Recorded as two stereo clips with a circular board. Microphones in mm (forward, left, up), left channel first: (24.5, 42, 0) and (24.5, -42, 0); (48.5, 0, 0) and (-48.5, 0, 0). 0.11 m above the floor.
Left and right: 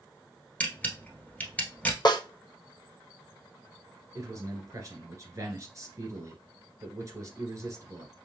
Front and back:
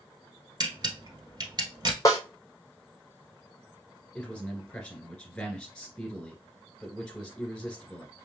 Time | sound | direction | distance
0.6 | a camera shutter | 160° left | 1.3 m
2.0 | a snare drum | 55° left | 1.0 m
4.2 | a man speaking | 80° right | 1.9 m